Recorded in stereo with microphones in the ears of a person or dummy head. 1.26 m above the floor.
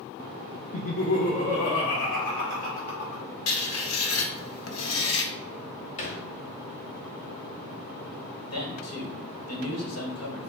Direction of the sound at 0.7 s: 40° left (ahead or behind).